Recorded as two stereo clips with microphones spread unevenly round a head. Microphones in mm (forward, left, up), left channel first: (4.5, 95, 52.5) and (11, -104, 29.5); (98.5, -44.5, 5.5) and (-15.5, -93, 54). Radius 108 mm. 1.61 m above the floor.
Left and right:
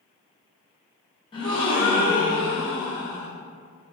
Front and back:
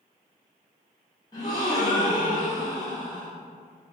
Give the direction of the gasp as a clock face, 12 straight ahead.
8 o'clock.